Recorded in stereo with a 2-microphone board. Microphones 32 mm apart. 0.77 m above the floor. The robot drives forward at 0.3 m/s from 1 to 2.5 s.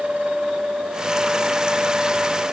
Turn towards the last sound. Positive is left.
No sound to turn to.